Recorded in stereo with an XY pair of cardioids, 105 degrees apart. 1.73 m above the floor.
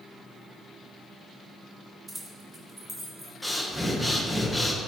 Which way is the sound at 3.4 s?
5° right.